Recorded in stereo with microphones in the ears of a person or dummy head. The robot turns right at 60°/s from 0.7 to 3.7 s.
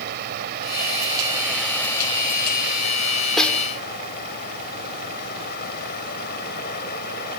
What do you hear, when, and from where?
0.0 s running water: 60° right; by 7.4 s 120° left
3.4 s a snare drum: centre (ahead or behind); by 3.7 s 15° left (ahead or behind)